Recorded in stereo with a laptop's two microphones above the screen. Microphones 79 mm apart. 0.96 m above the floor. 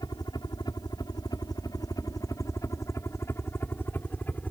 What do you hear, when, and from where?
0.0 s a helicopter: 60° left (ahead or behind); by 4.5 s 20° left (ahead or behind)